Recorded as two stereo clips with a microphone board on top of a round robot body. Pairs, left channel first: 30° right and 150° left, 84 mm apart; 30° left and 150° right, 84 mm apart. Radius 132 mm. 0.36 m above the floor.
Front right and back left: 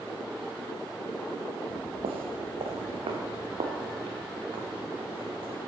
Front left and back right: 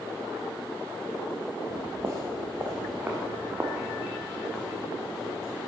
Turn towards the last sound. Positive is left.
turn(degrees=130)